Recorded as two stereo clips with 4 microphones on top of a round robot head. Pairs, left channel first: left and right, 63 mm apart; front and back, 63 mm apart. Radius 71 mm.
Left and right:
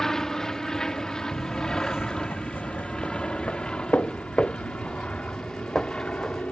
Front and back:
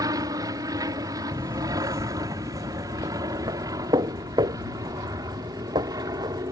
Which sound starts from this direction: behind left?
Footsteps, at 1.3 s.